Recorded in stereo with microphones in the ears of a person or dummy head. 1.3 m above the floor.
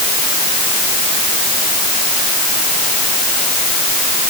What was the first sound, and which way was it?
Only background noise.